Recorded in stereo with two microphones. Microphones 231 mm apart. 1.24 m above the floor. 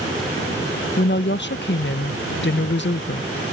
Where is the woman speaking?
50° left (ahead or behind).